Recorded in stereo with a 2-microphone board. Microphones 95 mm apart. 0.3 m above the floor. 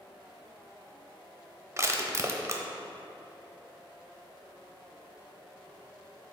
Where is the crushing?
35° right (ahead or behind), 0.7 m.